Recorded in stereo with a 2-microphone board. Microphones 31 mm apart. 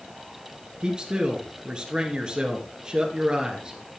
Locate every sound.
0.8 s a man speaking: 25° right (ahead or behind), 2 m